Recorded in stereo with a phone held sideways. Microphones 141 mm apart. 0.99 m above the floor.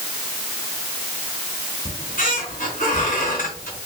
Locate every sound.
1.9 s a squeak: 70° left (ahead or behind), 3 m